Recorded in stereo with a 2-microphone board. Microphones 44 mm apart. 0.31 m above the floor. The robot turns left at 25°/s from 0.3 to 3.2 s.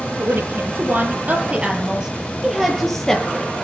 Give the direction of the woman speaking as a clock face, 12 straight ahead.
4 o'clock.